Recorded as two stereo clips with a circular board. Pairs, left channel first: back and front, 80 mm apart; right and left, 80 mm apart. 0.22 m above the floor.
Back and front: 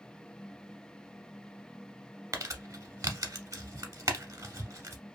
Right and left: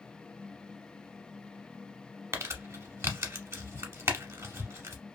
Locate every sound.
2.3 s crumpling: 40° left, 0.8 m